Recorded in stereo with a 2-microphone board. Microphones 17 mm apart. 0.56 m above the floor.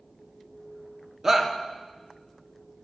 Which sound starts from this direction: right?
A shout, at 1.2 s.